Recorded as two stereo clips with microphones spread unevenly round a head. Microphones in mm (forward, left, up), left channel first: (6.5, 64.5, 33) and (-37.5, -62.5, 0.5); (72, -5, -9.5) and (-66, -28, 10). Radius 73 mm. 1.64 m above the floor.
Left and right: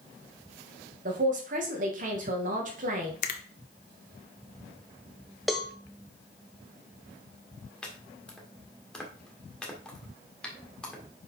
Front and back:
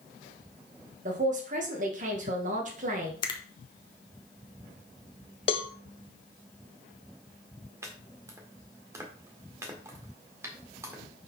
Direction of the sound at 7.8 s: 135° left.